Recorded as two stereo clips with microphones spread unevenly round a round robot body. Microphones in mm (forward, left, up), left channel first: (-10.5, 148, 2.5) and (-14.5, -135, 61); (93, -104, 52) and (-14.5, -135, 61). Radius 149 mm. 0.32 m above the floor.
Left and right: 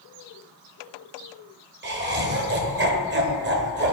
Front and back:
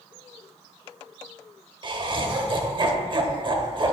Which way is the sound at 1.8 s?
140° right.